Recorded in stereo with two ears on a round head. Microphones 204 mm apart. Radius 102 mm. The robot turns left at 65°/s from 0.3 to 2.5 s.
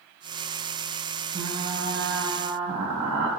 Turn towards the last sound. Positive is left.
turn(degrees=-90)